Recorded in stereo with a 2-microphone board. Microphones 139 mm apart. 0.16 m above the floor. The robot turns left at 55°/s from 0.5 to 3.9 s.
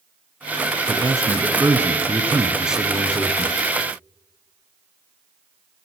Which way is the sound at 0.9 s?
25° right (ahead or behind).